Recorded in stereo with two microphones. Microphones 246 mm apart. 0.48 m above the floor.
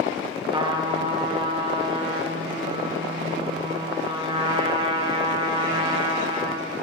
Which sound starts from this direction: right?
A trumpet, at 0.5 s.